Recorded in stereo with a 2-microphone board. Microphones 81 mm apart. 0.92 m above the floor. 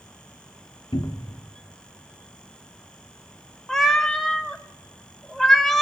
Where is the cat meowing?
5° left (ahead or behind), 0.7 m.